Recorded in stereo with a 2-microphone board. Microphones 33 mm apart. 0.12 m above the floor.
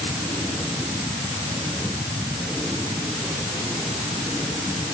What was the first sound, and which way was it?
Only background noise.